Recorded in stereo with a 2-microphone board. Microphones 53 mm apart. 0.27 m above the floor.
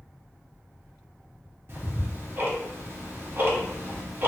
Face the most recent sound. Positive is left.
turn(degrees=-45)  # may be behind; listen again after turning